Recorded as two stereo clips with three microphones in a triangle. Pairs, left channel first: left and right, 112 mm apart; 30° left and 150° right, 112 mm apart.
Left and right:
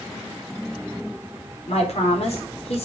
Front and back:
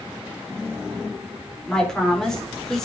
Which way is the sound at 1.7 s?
115° left.